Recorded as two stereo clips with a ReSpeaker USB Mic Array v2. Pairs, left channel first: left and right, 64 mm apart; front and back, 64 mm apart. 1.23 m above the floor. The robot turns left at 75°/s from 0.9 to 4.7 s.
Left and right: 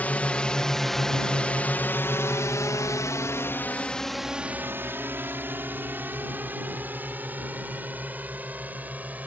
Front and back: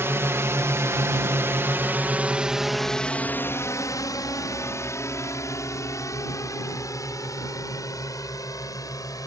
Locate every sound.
0.0 s a drone: 145° left; by 9.3 s 25° right